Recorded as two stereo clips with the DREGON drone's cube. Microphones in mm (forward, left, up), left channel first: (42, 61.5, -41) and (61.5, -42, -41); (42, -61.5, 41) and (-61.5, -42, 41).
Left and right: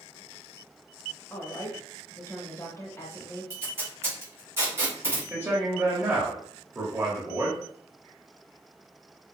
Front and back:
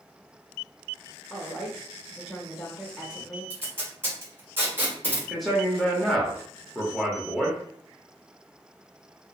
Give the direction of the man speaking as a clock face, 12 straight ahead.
3 o'clock.